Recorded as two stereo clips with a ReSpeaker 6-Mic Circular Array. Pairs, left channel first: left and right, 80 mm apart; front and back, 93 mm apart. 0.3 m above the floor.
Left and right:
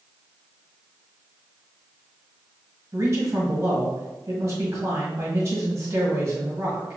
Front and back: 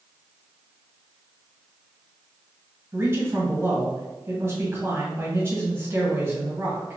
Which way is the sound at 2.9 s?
130° right.